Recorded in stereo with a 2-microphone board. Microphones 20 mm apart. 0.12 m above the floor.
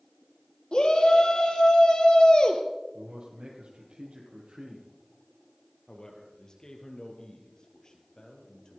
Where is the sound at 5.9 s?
35° left (ahead or behind), 3 m.